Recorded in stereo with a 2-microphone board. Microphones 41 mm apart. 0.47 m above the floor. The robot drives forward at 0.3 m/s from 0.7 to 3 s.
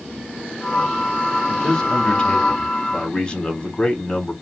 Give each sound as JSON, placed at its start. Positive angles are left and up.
{"t": 1.5, "sound": "a man speaking", "side_deg": 20, "distance_m": 1.1}